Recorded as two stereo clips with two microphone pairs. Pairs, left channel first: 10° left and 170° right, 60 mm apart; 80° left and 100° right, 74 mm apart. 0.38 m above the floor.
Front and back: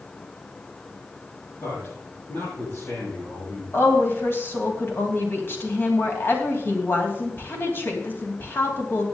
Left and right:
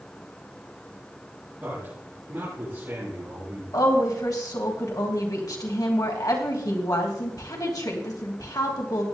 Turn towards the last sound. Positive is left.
turn(degrees=60)